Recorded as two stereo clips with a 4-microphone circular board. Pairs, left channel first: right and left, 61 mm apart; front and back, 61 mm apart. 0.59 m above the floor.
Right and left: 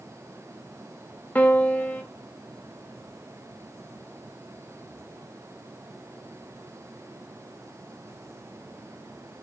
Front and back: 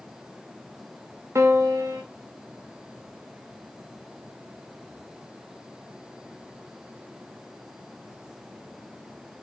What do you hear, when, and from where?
1.4 s a piano: 150° right, 1.3 m